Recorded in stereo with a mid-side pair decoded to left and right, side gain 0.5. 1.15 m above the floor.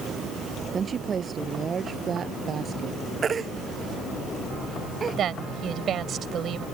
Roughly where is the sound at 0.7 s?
Ahead right.